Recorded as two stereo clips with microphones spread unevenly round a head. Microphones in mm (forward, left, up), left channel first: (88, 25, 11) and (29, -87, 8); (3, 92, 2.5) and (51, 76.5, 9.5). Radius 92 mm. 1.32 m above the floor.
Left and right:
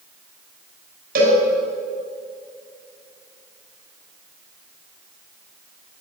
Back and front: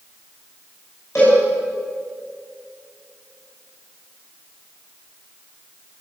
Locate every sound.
1.1 s a cowbell: 125° right, 5 m